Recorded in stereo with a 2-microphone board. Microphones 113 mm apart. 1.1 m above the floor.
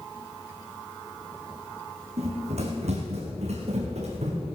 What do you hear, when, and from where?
2.2 s running footsteps: 70° right (ahead or behind), 3.5 m; by 4.4 s 75° right (ahead or behind), 4.5 m